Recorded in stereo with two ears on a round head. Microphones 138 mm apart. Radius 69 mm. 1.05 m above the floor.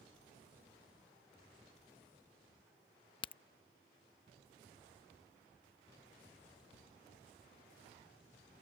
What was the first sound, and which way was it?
A crack, 30° left (ahead or behind).